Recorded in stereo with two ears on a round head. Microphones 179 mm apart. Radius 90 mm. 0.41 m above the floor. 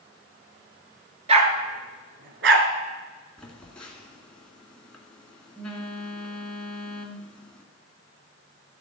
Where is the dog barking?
30° right (ahead or behind), 1.6 m; by 2.7 s 65° right (ahead or behind), 1.5 m.